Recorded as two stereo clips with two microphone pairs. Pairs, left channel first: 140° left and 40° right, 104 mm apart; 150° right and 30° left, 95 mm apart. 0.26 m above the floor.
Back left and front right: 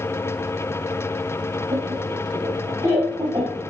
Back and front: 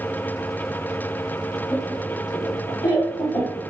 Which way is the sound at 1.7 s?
90° right.